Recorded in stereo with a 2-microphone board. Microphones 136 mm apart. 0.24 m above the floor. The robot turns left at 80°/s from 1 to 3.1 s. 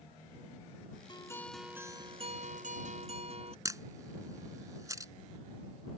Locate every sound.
1.1 s a guitar: 40° left; by 3.5 s 120° right
3.6 s a camera shutter: 25° right (ahead or behind)